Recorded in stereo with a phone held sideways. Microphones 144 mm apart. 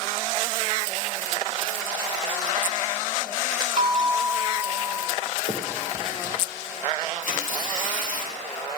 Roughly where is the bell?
Right.